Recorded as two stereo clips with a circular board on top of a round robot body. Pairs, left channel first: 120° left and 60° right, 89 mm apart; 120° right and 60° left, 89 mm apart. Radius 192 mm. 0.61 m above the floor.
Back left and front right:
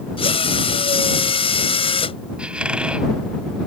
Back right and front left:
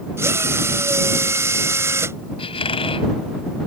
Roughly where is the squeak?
Behind right.